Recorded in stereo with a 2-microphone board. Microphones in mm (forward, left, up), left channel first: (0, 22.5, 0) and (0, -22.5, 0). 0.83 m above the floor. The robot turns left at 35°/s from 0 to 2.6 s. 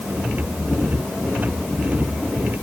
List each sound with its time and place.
Only background noise.